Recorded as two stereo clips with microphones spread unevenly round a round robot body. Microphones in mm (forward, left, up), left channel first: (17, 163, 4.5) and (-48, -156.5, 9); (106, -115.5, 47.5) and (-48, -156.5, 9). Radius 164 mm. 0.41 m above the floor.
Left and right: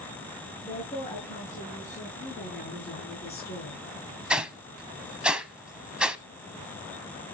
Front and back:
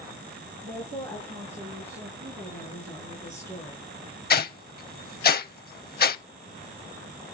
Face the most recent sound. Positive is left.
turn(degrees=-15)